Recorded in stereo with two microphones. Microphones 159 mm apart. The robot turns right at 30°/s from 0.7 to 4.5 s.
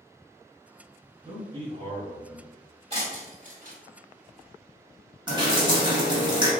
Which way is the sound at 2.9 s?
40° right (ahead or behind).